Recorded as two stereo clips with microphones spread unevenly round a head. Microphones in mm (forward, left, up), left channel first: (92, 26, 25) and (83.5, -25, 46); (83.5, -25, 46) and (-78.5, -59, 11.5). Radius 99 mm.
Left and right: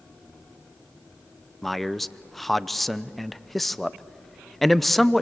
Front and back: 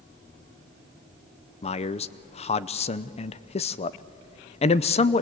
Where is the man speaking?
50° left, 0.6 m.